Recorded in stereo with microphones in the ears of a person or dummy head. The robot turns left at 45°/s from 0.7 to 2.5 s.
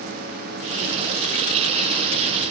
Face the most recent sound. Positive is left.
No sound to turn to.